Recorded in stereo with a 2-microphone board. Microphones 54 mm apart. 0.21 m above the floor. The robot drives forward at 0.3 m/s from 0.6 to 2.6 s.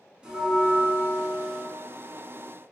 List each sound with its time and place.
0.2 s a bell: 20° right (ahead or behind), 0.7 m; by 1.6 s 15° right (ahead or behind), 1.0 m